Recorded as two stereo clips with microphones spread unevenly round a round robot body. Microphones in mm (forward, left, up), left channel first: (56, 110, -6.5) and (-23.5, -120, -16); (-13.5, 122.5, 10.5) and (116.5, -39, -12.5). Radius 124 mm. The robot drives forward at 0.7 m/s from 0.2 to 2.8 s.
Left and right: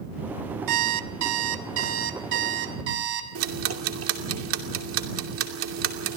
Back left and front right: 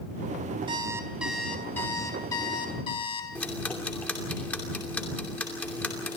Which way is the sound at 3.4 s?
145° right.